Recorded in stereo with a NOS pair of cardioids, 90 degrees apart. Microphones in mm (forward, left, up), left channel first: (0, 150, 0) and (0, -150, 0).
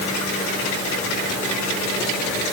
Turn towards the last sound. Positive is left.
No sound to turn to.